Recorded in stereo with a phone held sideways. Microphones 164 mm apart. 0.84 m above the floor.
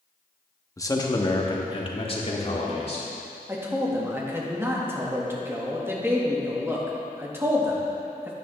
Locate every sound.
0.8 s a man speaking: 20° left (ahead or behind), 1.0 m; by 3.1 s 45° left (ahead or behind), 2 m
3.5 s a man speaking: 15° right (ahead or behind), 1.5 m